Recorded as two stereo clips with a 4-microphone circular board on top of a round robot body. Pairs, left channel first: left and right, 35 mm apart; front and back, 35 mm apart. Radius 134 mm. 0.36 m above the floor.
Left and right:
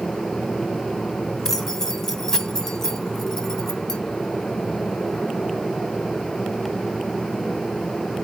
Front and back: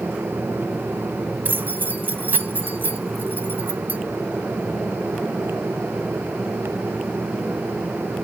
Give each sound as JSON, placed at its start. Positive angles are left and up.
{"t": 1.4, "sound": "keys jangling", "azimuth_deg": 165, "distance_m": 1.4}